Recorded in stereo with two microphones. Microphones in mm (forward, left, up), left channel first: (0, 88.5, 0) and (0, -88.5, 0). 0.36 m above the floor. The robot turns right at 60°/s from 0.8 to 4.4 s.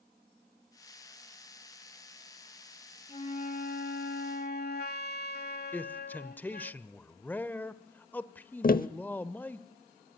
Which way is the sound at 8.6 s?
55° left (ahead or behind).